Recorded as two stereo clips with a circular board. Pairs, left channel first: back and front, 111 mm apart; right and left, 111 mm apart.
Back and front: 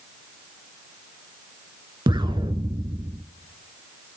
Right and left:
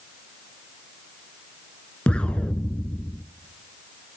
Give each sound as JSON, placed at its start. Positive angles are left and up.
{"t": 2.1, "sound": "an explosion", "azimuth_deg": -15, "distance_m": 0.5}